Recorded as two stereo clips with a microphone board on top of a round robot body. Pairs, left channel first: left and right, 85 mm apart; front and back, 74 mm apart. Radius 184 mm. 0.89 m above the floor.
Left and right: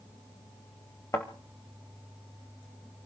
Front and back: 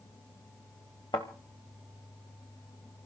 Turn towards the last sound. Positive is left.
turn(degrees=35)